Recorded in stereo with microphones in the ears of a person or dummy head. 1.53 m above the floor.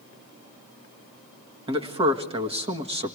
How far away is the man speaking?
About 1.7 m.